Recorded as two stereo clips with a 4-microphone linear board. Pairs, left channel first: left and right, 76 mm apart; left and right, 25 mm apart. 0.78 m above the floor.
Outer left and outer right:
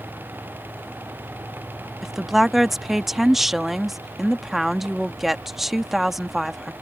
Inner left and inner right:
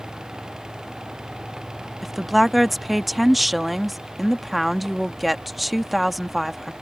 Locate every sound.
2.0 s a woman speaking: centre (ahead or behind)